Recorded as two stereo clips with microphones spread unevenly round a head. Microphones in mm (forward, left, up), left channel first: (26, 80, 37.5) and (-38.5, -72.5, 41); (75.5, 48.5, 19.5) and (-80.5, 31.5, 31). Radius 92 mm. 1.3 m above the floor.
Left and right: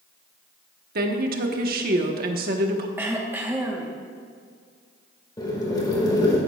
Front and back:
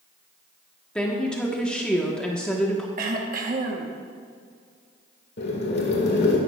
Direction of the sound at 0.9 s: 80° right.